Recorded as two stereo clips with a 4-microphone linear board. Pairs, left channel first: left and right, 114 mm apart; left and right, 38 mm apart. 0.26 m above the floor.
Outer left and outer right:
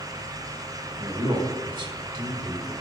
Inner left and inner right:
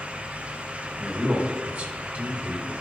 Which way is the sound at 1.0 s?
45° right (ahead or behind).